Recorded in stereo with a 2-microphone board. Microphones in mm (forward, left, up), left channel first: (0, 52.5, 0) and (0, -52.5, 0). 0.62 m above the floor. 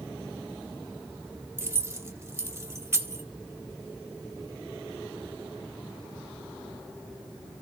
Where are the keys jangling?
25° right (ahead or behind), 1.0 m.